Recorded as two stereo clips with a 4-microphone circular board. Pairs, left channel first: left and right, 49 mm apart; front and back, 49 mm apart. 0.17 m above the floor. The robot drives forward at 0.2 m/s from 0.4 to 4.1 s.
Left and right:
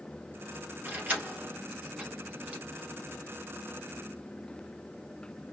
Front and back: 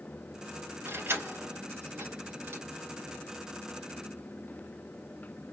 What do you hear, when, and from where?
0.8 s keys jangling: 150° right, 2.5 m; by 2.6 s 155° right, 2.5 m